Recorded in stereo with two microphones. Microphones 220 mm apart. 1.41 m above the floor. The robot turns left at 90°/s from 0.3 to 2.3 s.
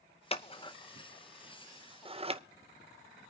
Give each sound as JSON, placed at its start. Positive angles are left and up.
{"t": 0.3, "sound": "scissors", "side_deg": 25, "distance_m": 0.6}